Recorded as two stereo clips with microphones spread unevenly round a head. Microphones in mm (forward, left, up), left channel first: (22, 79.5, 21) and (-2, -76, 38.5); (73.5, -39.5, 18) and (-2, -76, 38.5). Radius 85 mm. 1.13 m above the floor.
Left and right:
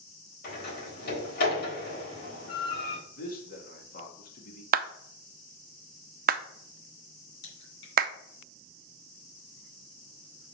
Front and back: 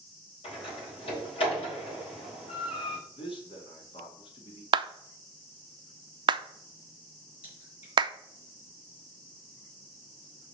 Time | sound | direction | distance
0.4 | a door slam | 50° left | 4 m
3.2 | a man speaking | 50° left | 1.9 m
4.7 | a clap | 125° right | 0.5 m
7.4 | a crack | 75° left | 3 m